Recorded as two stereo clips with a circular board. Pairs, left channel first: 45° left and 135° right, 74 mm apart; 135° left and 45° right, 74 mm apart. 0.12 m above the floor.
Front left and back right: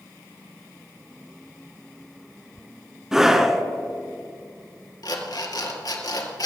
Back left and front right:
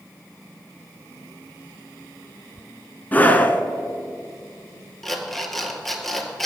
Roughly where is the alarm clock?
Ahead left.